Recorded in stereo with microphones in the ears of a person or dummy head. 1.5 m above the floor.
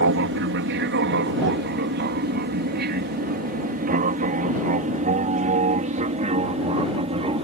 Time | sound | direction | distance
0.0 | an aircraft | 60° right (ahead or behind) | ?